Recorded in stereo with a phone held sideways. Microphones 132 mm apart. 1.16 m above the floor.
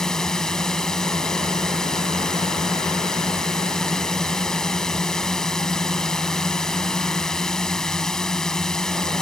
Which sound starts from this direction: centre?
A drone, at 0.0 s.